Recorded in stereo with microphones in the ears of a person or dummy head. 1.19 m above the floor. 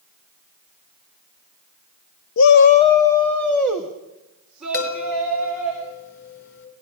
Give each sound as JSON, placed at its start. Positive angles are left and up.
{"t": 2.4, "sound": "a shout", "side_deg": 80, "distance_m": 0.5}
{"t": 4.7, "sound": "a chime", "side_deg": 65, "distance_m": 5.0}